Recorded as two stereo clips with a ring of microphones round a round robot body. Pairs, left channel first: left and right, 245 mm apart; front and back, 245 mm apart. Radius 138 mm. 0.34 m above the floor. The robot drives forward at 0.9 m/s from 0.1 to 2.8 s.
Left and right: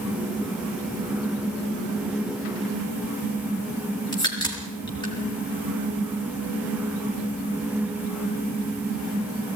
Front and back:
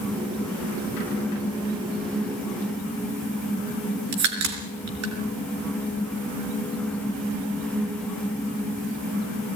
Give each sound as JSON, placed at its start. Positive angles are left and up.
{"t": 4.1, "sound": "a crack", "azimuth_deg": 165, "distance_m": 4.0}